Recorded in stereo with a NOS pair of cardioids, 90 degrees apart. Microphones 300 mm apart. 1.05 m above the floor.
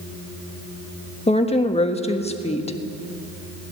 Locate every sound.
1.3 s a woman speaking: 20° left, 1.4 m